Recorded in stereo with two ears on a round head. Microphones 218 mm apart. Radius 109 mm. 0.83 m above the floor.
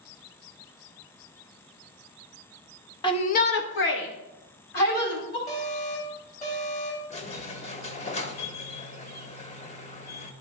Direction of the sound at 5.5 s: 30° left (ahead or behind).